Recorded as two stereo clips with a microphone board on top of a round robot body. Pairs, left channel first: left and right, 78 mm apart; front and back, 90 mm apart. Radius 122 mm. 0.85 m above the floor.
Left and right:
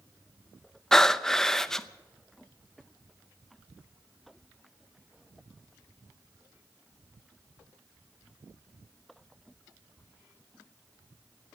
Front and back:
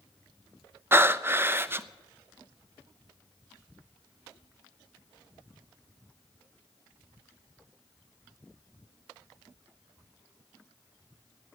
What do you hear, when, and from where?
0.9 s breathing: 165° left, 0.7 m